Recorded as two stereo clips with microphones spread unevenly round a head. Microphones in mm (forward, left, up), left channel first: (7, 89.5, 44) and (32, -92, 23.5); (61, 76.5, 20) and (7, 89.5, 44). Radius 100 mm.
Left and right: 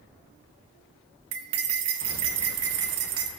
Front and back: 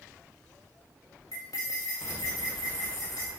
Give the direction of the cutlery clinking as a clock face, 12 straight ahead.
3 o'clock.